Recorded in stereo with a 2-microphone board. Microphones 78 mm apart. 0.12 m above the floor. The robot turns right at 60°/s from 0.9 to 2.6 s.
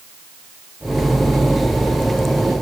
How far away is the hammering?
I don't hear hammering.